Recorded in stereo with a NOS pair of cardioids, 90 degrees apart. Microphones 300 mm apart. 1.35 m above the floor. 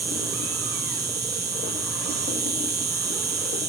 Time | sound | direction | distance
0.0 | an insect | 35° right | ?